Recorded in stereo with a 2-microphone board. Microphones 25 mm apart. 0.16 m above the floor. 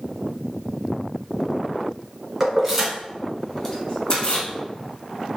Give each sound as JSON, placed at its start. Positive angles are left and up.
{"t": 2.4, "sound": "keys jangling", "side_deg": -15, "distance_m": 1.3}